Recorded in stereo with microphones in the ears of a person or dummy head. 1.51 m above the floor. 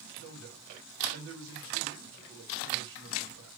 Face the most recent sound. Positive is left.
turn(degrees=-75)  # may be behind; listen again after turning